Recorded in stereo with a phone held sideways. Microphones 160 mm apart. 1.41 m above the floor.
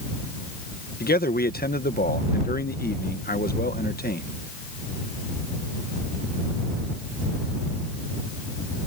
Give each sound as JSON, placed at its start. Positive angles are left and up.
{"t": 1.0, "sound": "a man speaking", "side_deg": 70}